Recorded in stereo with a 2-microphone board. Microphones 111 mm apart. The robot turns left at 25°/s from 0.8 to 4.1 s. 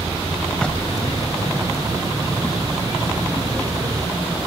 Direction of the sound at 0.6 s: 10° left (ahead or behind).